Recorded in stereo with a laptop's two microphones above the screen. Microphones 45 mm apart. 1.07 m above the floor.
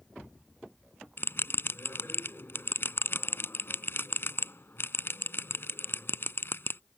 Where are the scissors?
No scissors in this recording.